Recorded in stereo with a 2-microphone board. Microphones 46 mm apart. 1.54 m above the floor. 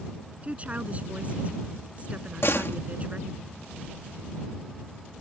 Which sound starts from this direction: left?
A door slam, at 2.4 s.